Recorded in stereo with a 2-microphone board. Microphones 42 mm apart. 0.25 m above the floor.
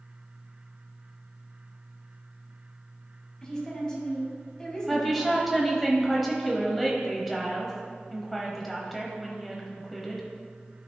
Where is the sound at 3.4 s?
15° left (ahead or behind), 2.0 m.